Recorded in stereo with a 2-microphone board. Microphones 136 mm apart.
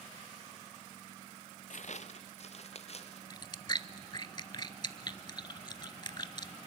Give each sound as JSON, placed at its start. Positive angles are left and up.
{"t": 1.7, "sound": "footsteps", "side_deg": 65, "distance_m": 0.6}
{"t": 3.3, "sound": "chewing", "side_deg": 35, "distance_m": 0.6}